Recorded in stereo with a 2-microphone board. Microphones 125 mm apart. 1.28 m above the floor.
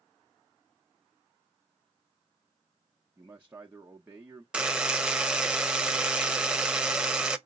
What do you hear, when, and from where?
3.2 s a man speaking: 15° right (ahead or behind), 0.8 m
4.5 s a buzzer: 5° right (ahead or behind), 0.6 m